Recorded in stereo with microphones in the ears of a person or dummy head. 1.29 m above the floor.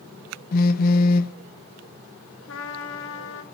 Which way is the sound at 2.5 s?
70° left (ahead or behind).